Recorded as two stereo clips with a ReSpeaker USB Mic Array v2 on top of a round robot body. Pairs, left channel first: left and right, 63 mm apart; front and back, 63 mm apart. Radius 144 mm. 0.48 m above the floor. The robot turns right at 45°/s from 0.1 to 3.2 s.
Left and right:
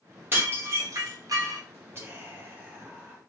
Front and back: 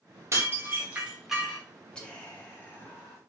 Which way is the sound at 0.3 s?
140° right.